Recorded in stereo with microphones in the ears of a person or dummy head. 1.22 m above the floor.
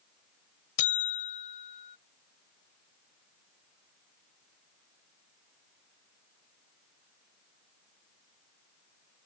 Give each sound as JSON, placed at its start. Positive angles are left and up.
{"t": 0.8, "sound": "a buzzer", "side_deg": 40}